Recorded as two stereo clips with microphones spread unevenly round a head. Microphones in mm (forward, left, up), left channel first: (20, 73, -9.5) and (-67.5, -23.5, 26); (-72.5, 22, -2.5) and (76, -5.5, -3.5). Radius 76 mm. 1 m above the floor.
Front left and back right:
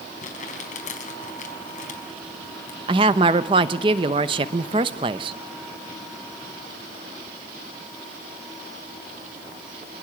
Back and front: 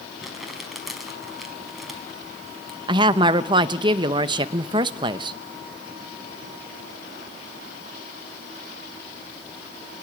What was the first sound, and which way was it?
Crumpling, 80° left.